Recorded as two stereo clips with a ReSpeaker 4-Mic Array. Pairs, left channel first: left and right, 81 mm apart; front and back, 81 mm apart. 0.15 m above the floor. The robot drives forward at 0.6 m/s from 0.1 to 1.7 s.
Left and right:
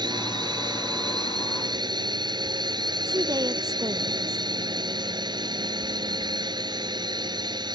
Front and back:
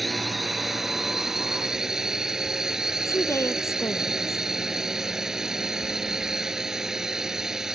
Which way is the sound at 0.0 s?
90° right.